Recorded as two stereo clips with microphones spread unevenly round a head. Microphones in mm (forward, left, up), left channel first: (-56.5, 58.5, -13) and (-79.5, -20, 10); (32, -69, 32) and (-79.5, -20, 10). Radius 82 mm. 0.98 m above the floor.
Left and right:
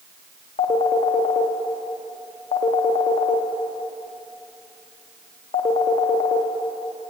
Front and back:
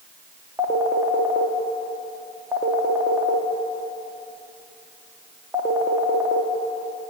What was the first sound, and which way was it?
A phone ringing, 75° left.